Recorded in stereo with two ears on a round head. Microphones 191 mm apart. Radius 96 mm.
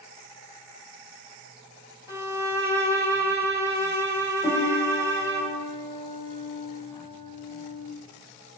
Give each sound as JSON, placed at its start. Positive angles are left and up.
{"t": 2.1, "sound": "a violin", "side_deg": -15, "distance_m": 0.8}
{"t": 4.4, "sound": "a piano", "side_deg": 20, "distance_m": 1.1}